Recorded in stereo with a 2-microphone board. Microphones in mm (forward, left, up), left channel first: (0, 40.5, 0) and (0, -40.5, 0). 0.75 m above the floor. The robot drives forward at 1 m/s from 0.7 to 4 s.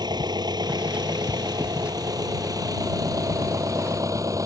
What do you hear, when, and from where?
0.0 s an engine running: 60° right (ahead or behind); by 4.5 s 45° right (ahead or behind)